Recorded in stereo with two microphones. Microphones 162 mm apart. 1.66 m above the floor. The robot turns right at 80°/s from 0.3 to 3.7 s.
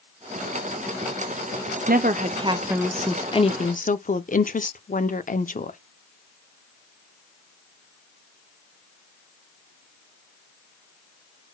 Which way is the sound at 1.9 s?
85° right.